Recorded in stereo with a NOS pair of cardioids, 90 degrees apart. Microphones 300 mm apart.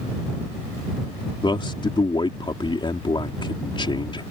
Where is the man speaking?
15° left.